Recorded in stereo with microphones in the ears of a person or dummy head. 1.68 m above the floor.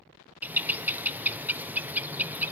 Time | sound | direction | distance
0.4 | a bird | 10° right (ahead or behind) | 0.8 m